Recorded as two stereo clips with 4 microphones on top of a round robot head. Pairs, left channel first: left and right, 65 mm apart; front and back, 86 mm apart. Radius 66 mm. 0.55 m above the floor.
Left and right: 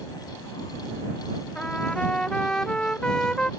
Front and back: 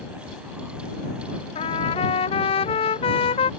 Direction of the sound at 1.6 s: 5° left.